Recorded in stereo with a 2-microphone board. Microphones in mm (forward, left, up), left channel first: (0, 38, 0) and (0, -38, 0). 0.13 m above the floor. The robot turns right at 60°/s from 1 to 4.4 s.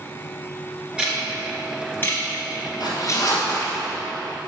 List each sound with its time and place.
1.0 s ticking: 15° right (ahead or behind), 2 m; by 3.3 s 40° left (ahead or behind), 2 m
2.8 s a zipper: 90° left, 2.5 m; by 3.8 s 150° left, 2.5 m